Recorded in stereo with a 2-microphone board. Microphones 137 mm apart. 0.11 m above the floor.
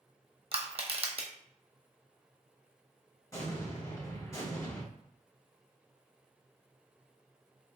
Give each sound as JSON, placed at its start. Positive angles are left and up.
{"t": 0.5, "sound": "crushing", "side_deg": -50, "distance_m": 0.7}
{"t": 3.3, "sound": "an explosion", "side_deg": 25, "distance_m": 1.9}